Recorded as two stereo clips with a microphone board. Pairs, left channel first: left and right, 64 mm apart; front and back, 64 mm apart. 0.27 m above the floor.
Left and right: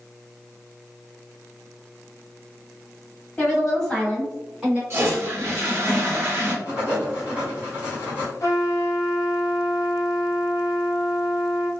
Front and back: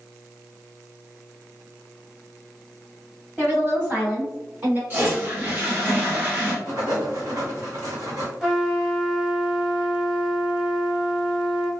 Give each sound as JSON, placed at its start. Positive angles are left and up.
{"t": 3.4, "sound": "a woman speaking", "azimuth_deg": 145, "distance_m": 1.9}
{"t": 4.9, "sound": "a toilet flushing", "azimuth_deg": -130, "distance_m": 1.2}
{"t": 6.7, "sound": "writing", "azimuth_deg": -150, "distance_m": 1.6}
{"t": 8.4, "sound": "a trumpet", "azimuth_deg": 100, "distance_m": 1.1}